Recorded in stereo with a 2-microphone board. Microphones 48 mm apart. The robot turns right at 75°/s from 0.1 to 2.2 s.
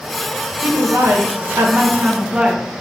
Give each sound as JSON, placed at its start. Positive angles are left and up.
{"t": 0.6, "sound": "a woman speaking", "azimuth_deg": -135, "distance_m": 1.7}